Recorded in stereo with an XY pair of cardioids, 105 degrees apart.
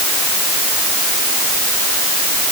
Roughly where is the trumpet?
I don't hear a trumpet.